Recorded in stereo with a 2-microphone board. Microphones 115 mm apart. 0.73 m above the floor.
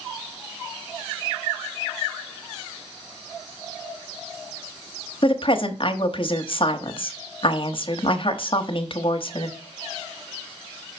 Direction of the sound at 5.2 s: 50° left (ahead or behind).